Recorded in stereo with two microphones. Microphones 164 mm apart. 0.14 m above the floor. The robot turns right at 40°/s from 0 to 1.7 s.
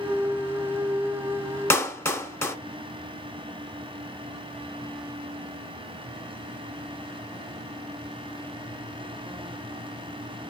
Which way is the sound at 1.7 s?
15° left (ahead or behind).